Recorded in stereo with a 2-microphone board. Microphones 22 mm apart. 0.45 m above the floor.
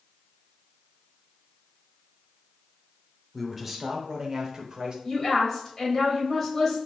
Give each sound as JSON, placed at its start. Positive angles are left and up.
{"t": 3.3, "sound": "a man speaking", "side_deg": -5, "distance_m": 1.1}
{"t": 5.0, "sound": "a woman speaking", "side_deg": 15, "distance_m": 2.5}